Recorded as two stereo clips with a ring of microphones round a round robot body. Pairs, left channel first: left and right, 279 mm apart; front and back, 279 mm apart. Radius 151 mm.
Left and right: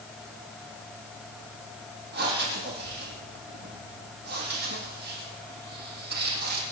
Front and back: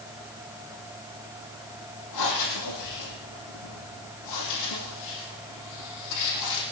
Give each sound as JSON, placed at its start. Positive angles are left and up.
{"t": 2.1, "sound": "breathing", "azimuth_deg": -35, "distance_m": 5.0}